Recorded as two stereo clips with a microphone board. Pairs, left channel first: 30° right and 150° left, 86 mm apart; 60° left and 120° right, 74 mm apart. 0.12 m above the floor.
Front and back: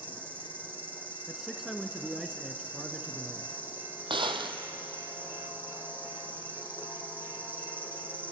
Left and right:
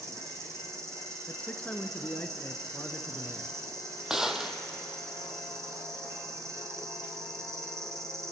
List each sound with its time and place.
0.0 s an insect: 150° right, 2 m
1.3 s a man speaking: 75° left, 1.1 m
4.1 s a gunshot: 155° left, 1.1 m